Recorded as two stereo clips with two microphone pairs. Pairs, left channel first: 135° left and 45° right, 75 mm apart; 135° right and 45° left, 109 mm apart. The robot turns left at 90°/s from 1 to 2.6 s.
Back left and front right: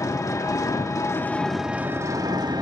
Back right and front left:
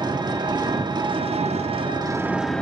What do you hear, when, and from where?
0.0 s an engine running: 90° left, 1.3 m; by 2.6 s 50° right, 1.3 m